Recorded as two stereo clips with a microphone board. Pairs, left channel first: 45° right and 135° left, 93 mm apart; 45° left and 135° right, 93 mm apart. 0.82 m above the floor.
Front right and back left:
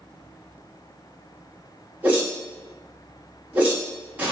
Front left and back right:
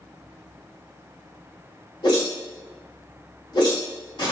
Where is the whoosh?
65° left, 1.4 m.